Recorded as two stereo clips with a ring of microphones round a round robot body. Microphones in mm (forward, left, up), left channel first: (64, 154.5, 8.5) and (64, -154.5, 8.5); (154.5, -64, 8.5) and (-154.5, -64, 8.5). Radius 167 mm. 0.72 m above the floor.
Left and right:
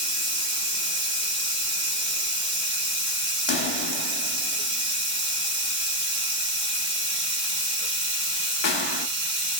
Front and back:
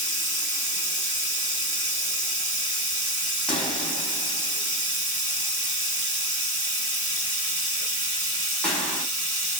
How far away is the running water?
About 1.3 m.